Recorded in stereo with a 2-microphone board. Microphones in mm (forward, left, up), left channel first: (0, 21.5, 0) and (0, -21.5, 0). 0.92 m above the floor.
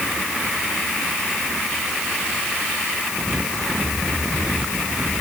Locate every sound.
Only background noise.